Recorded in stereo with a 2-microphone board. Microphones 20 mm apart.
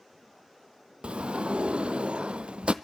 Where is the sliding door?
70° right (ahead or behind), 0.8 m.